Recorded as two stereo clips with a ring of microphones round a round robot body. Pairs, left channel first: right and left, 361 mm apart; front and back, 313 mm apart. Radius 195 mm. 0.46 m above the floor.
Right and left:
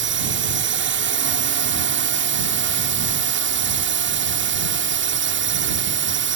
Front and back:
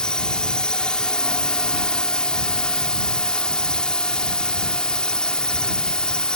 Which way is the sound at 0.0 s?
85° left.